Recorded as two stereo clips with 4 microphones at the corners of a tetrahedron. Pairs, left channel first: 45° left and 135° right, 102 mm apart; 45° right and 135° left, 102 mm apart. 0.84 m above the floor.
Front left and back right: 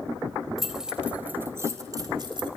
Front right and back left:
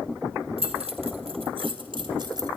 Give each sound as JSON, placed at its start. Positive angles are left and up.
{"t": 0.6, "sound": "keys jangling", "azimuth_deg": 135, "distance_m": 2.5}